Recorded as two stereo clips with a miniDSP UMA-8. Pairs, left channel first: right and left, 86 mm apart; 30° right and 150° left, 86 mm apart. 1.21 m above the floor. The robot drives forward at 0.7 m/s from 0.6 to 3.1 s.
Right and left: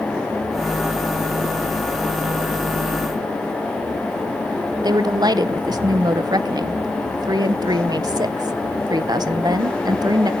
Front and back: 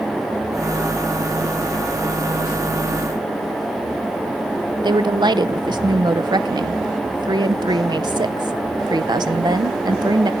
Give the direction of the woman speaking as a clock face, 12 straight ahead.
8 o'clock.